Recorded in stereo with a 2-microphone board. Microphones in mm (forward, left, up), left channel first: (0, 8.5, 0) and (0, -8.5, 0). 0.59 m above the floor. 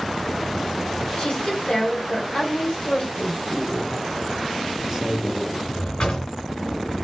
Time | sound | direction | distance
1.2 | a woman speaking | 60° left (ahead or behind) | 1.9 m
3.1 | a man speaking | 30° right (ahead or behind) | 1.5 m
5.7 | a drawer | 60° left (ahead or behind) | 2.5 m